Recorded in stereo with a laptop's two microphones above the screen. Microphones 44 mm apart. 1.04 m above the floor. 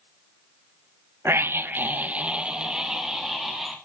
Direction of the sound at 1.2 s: 60° right (ahead or behind).